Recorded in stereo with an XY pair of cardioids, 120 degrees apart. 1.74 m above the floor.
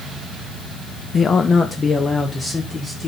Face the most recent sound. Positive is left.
turn(degrees=30)